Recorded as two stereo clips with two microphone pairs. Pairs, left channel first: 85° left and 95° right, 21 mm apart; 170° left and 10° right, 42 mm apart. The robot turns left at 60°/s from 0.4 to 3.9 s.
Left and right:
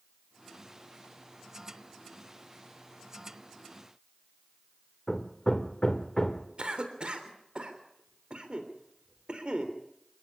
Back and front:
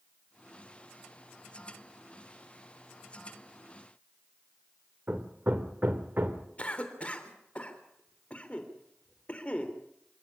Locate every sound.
5.1 s hammering: 25° left, 1.6 m
6.6 s a cough: 130° right, 3.5 m